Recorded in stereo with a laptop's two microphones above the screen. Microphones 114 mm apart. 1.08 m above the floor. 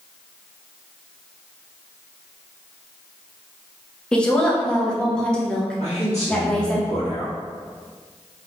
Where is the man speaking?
70° left (ahead or behind), 1.8 m.